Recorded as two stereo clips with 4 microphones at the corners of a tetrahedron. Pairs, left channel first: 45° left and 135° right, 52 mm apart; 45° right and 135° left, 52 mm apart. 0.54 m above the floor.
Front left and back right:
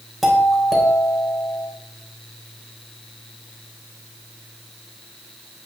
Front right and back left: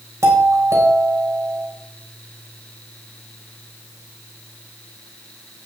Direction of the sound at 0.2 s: 135° left.